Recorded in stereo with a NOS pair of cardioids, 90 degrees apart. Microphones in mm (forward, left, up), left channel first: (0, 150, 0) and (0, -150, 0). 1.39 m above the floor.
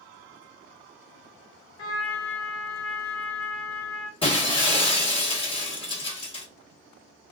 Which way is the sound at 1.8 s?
50° left.